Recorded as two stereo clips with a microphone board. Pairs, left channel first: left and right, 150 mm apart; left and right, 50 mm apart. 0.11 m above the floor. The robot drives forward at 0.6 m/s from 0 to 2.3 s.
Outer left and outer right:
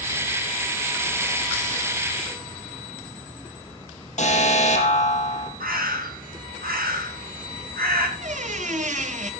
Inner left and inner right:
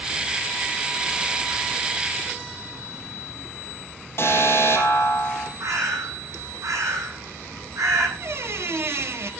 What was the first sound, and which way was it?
An alarm, 50° left (ahead or behind).